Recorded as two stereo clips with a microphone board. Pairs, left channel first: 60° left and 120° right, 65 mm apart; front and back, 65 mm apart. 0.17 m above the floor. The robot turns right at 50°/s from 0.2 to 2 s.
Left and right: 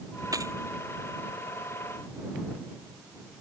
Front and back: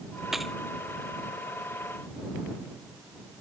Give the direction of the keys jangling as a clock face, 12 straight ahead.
3 o'clock.